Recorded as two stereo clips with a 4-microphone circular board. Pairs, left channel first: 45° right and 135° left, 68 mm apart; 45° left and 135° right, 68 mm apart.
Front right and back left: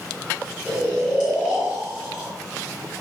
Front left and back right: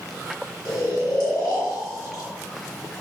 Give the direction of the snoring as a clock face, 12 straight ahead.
10 o'clock.